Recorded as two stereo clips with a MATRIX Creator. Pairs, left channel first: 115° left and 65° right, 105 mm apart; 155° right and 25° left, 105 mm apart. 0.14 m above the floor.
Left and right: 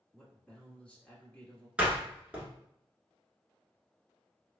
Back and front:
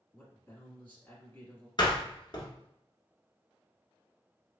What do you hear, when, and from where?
0.1 s a man speaking: 170° left, 1.3 m
1.8 s a door slam: 145° right, 1.3 m